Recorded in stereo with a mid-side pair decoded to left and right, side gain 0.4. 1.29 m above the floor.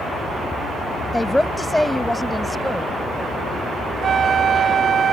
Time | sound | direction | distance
1.1 | a woman speaking | 10° left | ?
4.0 | a flute | 55° right | ?